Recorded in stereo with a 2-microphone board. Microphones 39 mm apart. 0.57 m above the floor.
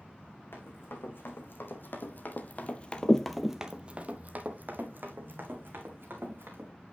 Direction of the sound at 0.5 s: 75° left (ahead or behind).